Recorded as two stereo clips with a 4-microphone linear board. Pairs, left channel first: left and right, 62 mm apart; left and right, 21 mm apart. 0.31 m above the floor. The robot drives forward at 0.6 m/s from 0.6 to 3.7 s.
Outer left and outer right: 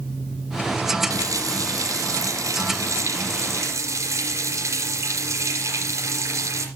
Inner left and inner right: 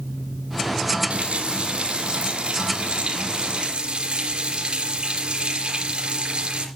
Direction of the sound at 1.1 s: 75° right (ahead or behind).